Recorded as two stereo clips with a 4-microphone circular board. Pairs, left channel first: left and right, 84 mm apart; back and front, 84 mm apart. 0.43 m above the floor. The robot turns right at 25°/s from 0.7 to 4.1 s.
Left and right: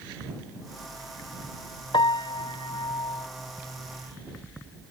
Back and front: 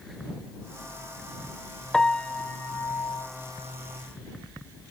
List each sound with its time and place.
1.9 s a piano: 95° left; by 3.3 s 130° left